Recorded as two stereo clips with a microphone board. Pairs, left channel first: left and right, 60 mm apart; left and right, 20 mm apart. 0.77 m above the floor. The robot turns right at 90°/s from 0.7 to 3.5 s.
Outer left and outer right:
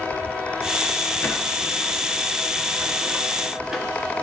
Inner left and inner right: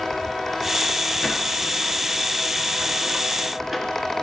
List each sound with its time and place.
1.2 s a sliding door: 30° left (ahead or behind), 1.0 m; by 3.9 s 5° right (ahead or behind), 1.0 m